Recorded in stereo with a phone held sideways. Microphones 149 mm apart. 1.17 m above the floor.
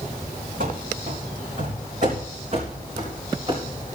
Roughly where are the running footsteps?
Right.